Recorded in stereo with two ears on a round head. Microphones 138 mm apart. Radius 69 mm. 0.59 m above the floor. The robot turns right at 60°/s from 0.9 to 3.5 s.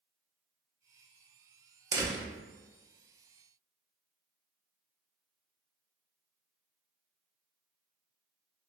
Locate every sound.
1.9 s a door slam: 20° right (ahead or behind), 0.8 m